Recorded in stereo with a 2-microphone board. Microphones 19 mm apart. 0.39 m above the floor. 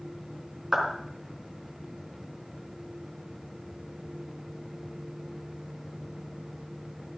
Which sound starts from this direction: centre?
A clap, at 0.7 s.